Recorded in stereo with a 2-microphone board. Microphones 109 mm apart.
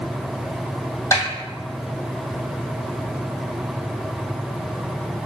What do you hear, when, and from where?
1.1 s a snare drum: 30° left (ahead or behind), 1.9 m